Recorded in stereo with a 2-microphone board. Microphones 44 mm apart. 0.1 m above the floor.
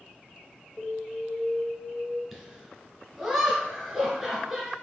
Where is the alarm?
35° left (ahead or behind), 1.9 m.